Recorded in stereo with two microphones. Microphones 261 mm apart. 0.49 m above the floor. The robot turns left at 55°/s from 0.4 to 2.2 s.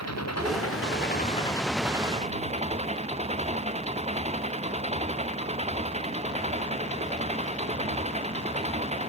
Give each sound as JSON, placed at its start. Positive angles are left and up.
{"t": 0.0, "sound": "an engine running", "azimuth_deg": 75}